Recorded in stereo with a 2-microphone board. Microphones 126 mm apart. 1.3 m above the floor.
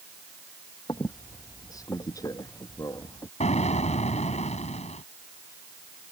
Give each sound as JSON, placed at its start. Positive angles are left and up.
{"t": 0.9, "sound": "a squeak", "side_deg": 30}
{"t": 3.4, "sound": "an explosion", "side_deg": 70}